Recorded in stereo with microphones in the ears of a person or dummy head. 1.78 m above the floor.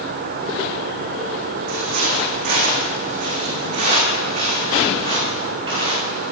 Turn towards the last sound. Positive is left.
turn(degrees=-30)  # may be behind; listen again after turning